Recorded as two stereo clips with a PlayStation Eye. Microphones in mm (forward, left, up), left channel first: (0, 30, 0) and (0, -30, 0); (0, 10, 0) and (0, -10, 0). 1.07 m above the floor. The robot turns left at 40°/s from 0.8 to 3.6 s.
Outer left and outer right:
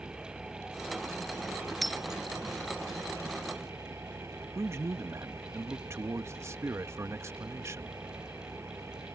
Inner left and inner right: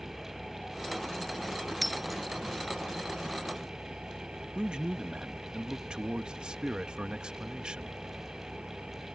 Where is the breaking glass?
Centre (ahead or behind); by 2.2 s 15° right (ahead or behind).